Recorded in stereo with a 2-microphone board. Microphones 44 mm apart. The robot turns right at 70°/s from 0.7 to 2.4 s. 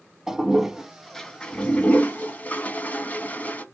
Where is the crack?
I don't hear a crack.